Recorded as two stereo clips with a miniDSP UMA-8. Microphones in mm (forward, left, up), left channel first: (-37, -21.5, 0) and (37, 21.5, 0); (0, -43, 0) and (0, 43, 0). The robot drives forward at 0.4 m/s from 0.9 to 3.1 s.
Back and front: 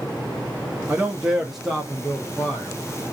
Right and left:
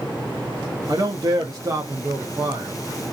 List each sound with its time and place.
0.9 s a man speaking: 90° left, 0.7 m; by 2.8 s 145° left, 1.0 m